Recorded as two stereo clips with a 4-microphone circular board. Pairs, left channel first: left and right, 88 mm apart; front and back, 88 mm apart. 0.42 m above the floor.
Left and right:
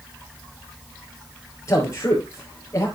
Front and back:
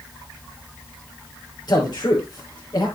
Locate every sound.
1.7 s a man speaking: 35° left, 6 m